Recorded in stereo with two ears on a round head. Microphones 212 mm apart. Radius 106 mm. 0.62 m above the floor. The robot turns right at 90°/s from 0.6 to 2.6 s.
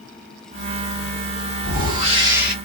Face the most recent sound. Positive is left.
turn(degrees=5)